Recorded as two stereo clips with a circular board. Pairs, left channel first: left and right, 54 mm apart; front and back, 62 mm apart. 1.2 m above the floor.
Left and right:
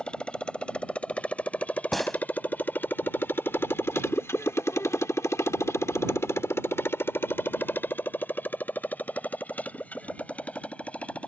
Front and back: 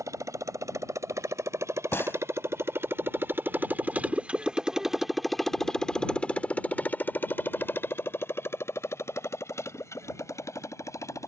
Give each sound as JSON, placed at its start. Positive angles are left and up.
{"t": 0.0, "sound": "a motorcycle", "azimuth_deg": 160}
{"t": 1.9, "sound": "a gunshot", "azimuth_deg": 5}